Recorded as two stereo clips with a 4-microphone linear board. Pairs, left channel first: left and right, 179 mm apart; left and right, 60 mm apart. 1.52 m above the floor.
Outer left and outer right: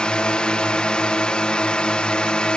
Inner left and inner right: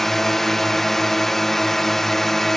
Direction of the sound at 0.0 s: 5° left (ahead or behind).